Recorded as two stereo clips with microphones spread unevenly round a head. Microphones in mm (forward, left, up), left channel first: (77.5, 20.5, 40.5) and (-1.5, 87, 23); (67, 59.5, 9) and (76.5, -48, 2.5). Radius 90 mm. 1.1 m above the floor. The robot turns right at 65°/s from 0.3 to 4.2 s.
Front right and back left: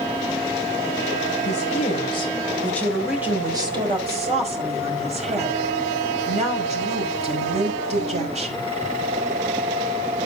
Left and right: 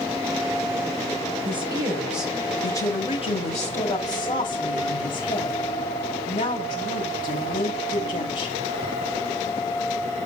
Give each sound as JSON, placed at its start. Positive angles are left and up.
{"t": 1.4, "sound": "a woman speaking", "azimuth_deg": -50, "distance_m": 4.5}